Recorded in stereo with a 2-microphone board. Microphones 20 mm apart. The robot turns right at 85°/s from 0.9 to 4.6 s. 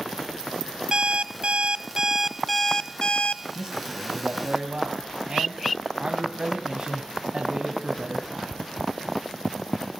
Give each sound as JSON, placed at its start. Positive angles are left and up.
{"t": 0.9, "sound": "an alarm clock", "azimuth_deg": -135, "distance_m": 1.0}
{"t": 3.5, "sound": "a man speaking", "azimuth_deg": -155, "distance_m": 2.5}